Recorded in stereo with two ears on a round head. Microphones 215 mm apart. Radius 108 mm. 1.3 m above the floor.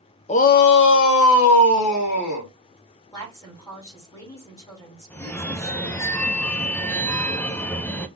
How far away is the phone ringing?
About 0.6 m.